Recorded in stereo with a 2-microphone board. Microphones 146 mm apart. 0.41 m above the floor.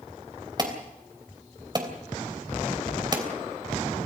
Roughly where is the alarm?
Right.